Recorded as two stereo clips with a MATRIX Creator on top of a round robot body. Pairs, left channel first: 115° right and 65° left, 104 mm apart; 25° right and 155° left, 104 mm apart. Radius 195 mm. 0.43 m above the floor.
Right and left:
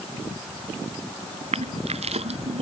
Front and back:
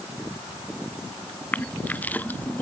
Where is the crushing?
50° left.